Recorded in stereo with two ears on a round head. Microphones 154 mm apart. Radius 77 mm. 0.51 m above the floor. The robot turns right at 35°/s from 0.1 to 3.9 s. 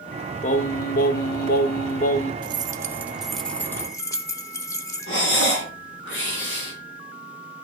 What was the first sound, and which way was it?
Singing, 60° left.